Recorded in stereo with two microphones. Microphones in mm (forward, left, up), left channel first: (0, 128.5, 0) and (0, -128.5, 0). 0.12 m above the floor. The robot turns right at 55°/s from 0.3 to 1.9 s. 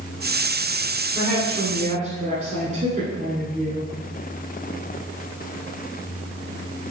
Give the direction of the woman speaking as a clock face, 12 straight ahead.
5 o'clock.